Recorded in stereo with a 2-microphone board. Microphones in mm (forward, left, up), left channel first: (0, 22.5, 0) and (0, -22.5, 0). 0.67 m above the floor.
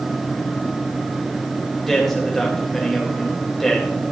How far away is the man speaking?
About 3 m.